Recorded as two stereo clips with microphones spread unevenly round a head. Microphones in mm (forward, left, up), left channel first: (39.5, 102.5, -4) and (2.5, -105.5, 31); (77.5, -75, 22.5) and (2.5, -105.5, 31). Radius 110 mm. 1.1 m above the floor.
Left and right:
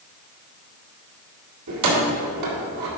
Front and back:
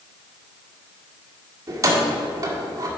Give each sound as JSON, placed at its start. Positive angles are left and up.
{"t": 1.7, "sound": "keys jangling", "azimuth_deg": -110, "distance_m": 1.8}